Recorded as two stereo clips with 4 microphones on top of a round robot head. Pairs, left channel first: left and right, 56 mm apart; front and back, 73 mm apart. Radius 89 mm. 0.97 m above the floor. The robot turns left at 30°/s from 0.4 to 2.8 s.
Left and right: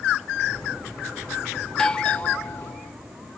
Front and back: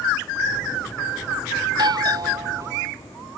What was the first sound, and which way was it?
A doorbell, 170° left.